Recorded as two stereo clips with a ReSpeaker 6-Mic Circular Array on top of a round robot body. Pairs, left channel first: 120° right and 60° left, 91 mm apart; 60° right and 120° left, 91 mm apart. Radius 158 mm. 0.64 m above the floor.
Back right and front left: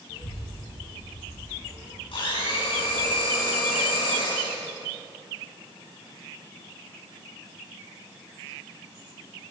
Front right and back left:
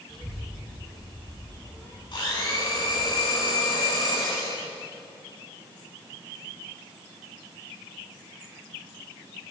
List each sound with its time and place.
0.1 s a child speaking: 125° right, 9 m
2.1 s a blender: 95° right, 9.5 m